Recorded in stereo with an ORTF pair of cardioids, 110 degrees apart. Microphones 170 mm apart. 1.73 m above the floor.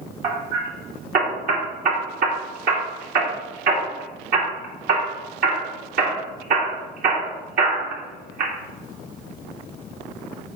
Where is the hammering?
60° right, 3 m.